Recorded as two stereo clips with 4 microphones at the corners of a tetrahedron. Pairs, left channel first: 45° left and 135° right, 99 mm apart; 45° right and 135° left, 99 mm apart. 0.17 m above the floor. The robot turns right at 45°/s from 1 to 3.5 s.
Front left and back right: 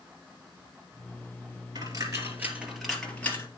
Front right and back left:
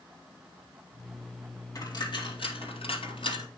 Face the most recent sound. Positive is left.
turn(degrees=-15)